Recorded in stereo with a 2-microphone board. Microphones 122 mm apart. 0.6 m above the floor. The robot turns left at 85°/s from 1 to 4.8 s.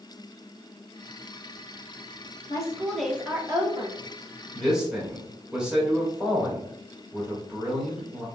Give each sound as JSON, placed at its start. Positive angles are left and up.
{"t": 2.5, "sound": "a woman speaking", "azimuth_deg": 45, "distance_m": 1.0}
{"t": 4.5, "sound": "a man speaking", "side_deg": 10, "distance_m": 1.5}